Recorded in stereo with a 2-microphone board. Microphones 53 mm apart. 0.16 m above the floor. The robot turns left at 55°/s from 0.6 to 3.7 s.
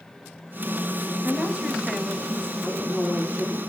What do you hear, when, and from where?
1.2 s a woman speaking: 130° right, 3.5 m; by 2.5 s 160° left, 3.5 m
2.6 s a woman speaking: straight behind, 6.5 m; by 3.6 s 125° left, 6.5 m